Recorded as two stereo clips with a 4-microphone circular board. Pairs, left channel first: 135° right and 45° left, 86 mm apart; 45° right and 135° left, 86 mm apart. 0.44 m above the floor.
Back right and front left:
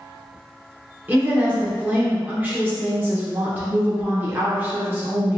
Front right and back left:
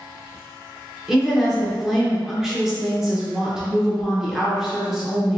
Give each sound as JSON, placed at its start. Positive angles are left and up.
{"t": 1.1, "sound": "a woman speaking", "azimuth_deg": 65, "distance_m": 0.7}